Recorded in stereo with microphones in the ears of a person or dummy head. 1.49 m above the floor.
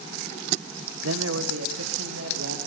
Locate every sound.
1.0 s a man speaking: 80° right, 1.0 m; by 2.6 s 85° right, 2.5 m